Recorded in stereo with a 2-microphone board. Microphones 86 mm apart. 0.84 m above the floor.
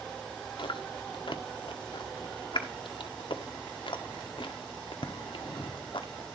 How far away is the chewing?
About 1.2 m.